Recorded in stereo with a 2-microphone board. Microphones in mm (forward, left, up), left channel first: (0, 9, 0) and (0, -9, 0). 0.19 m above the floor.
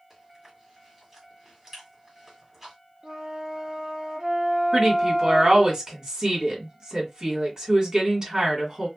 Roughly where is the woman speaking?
Right.